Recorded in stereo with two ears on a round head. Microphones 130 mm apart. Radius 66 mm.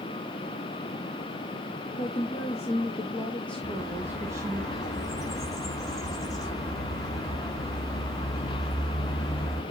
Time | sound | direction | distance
2.0 | a woman speaking | 55° left (ahead or behind) | 1.5 m
3.6 | a bird | 25° left (ahead or behind) | 3 m